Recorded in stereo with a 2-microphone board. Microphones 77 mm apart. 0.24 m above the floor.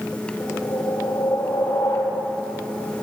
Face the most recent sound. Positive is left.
turn(degrees=75)  # may be behind; listen again after turning